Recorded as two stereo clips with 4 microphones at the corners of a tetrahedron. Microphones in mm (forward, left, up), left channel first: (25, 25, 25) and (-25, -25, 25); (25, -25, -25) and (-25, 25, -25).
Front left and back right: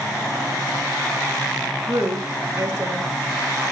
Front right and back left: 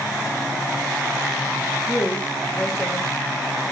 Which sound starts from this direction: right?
A woman speaking, at 1.9 s.